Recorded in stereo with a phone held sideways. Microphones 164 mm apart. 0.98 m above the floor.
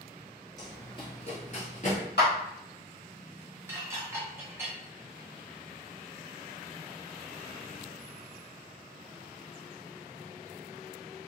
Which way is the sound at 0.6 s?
20° left (ahead or behind).